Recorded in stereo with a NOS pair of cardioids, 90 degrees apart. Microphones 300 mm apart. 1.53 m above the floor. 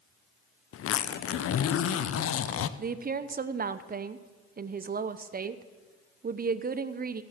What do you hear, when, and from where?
0.7 s a zipper: 50° left, 0.7 m
2.8 s a woman speaking: 30° right, 0.8 m